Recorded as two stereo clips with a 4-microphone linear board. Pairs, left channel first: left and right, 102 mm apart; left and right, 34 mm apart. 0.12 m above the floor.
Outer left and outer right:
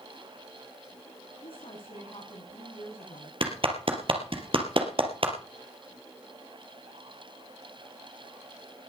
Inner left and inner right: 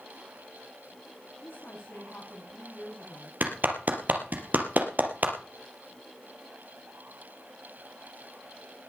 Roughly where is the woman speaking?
Left.